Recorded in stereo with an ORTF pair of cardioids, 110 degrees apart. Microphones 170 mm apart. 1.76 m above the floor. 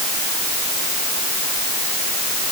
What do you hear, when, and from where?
Only background noise.